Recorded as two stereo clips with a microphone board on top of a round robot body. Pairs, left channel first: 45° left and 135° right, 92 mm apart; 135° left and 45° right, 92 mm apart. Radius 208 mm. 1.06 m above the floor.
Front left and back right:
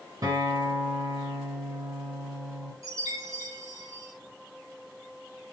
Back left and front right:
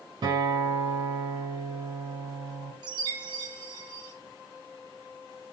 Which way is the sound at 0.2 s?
85° right.